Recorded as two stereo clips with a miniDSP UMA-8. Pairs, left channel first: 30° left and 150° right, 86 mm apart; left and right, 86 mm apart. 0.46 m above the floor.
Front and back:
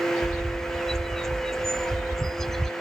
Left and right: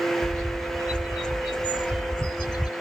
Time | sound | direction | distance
0.2 | a bird | 115° left | ?